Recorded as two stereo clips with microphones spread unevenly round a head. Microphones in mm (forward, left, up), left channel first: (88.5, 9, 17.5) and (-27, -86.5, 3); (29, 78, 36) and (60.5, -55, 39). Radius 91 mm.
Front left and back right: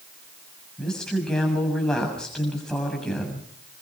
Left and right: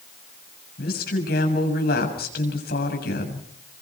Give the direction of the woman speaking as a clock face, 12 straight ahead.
8 o'clock.